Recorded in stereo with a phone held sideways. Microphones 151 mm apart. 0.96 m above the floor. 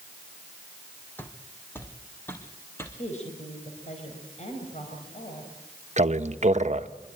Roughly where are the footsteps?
Centre.